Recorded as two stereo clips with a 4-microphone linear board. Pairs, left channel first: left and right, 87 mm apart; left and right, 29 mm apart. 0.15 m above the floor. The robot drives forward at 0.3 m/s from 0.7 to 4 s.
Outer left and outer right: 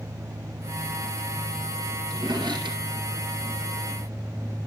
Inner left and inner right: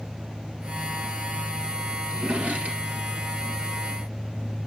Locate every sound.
2.1 s a drawer: 65° right (ahead or behind), 1.9 m